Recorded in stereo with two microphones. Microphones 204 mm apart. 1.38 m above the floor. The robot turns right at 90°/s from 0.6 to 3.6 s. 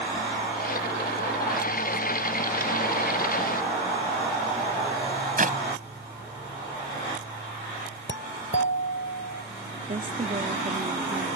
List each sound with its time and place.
5.4 s a clap: 45° right (ahead or behind)
8.1 s a doorbell: 80° left
9.9 s a woman speaking: 40° right (ahead or behind)